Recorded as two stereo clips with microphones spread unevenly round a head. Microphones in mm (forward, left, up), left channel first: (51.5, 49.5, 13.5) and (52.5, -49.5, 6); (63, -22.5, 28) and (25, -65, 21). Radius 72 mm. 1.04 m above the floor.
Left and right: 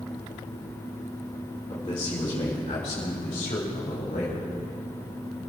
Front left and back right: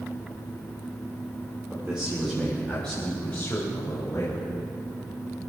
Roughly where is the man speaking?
Behind left.